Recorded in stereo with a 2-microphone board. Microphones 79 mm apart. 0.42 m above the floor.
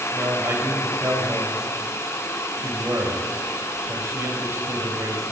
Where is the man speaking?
40° right (ahead or behind), 1.9 m.